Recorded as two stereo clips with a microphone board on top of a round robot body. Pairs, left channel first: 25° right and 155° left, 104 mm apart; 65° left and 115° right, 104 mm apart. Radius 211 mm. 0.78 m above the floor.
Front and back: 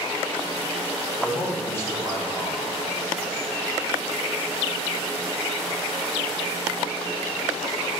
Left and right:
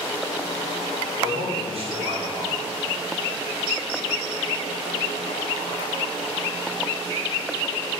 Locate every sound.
1.2 s a man speaking: 90° right, 3 m